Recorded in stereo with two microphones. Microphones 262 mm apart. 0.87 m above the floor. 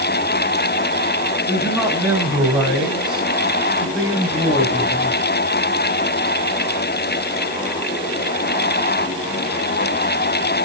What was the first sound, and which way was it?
A man speaking, 15° right (ahead or behind).